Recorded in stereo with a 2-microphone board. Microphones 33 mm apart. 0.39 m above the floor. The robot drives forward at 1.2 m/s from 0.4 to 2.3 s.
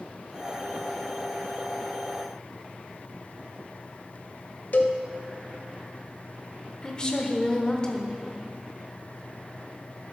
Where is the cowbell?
55° left (ahead or behind), 0.9 m.